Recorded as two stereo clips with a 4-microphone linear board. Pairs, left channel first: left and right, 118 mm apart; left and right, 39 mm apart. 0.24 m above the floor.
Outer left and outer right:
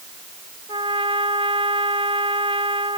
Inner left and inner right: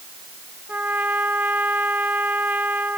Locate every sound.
0.7 s a trumpet: 45° right (ahead or behind)